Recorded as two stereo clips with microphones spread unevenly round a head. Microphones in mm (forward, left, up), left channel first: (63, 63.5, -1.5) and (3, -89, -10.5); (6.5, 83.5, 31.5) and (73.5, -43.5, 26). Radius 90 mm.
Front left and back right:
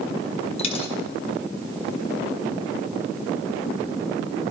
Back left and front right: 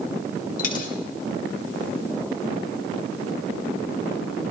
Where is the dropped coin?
115° left, 1.4 m.